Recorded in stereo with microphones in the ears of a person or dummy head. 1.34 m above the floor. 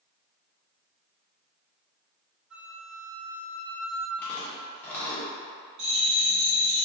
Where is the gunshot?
No gunshot in this recording.